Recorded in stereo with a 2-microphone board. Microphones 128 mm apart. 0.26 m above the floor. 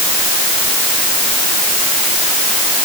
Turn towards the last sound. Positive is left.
No sound to turn to.